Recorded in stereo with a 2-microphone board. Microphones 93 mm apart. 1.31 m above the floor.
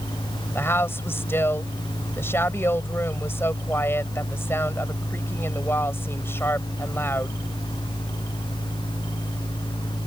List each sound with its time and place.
0.6 s a woman speaking: 25° left (ahead or behind)